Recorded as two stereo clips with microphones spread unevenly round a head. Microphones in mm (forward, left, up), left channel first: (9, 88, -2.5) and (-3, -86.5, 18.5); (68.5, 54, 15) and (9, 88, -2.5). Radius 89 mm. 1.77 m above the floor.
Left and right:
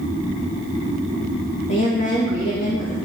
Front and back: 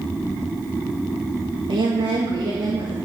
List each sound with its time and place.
1.7 s a woman speaking: 135° left, 2.0 m